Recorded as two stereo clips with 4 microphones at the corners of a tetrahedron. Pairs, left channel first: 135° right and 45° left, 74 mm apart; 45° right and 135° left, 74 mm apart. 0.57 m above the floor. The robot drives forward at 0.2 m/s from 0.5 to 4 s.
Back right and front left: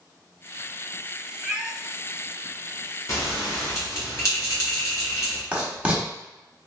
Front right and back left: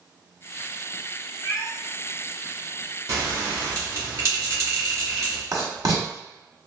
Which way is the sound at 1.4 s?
20° right.